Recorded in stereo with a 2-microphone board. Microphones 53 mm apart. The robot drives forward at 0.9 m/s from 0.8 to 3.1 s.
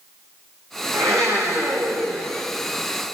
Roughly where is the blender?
Right.